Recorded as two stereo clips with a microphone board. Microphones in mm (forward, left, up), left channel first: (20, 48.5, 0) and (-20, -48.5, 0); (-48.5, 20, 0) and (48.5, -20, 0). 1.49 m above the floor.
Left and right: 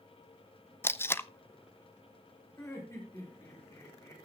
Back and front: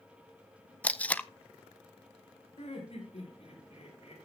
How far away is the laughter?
About 6.5 m.